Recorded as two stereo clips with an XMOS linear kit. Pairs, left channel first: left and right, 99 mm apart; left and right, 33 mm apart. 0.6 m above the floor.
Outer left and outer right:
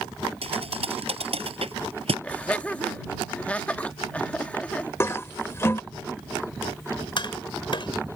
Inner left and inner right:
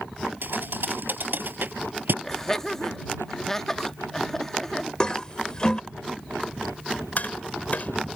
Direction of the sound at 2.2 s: 15° left (ahead or behind).